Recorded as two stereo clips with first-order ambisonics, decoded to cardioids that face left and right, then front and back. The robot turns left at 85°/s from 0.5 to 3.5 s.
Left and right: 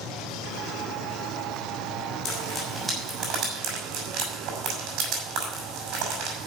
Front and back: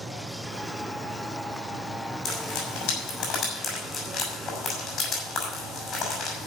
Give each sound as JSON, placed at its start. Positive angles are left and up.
{"t": 2.2, "sound": "frying", "azimuth_deg": 55, "distance_m": 5.5}